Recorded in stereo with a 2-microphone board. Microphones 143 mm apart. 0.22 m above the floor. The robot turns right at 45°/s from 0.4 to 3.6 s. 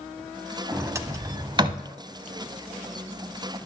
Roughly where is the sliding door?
Centre.